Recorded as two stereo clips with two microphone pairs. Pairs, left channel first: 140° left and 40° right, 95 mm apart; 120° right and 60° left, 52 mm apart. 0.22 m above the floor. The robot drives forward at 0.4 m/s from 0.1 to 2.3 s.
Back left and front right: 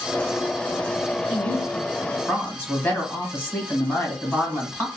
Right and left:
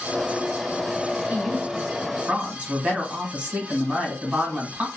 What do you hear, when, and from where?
1.3 s a woman speaking: 60° left, 1.4 m; by 4.9 s 90° left, 1.3 m